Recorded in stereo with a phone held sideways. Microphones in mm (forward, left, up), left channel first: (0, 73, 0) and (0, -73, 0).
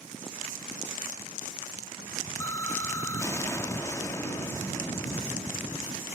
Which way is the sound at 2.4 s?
20° left (ahead or behind).